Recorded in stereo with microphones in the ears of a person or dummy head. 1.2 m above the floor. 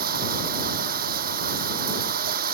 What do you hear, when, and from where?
0.0 s running water: 40° right (ahead or behind)